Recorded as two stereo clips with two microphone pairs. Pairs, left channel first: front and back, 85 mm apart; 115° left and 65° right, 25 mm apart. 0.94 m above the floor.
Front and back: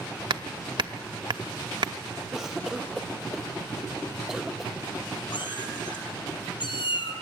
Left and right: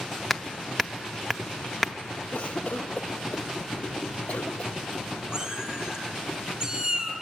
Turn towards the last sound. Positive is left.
turn(degrees=-10)